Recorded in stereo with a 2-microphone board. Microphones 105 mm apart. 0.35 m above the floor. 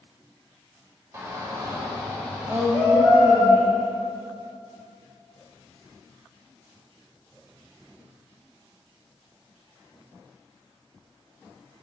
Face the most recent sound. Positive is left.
turn(degrees=-35)  # may be behind; listen again after turning